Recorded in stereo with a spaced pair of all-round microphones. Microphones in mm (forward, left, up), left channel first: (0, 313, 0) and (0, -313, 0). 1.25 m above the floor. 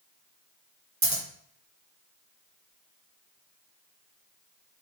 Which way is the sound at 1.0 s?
30° right (ahead or behind).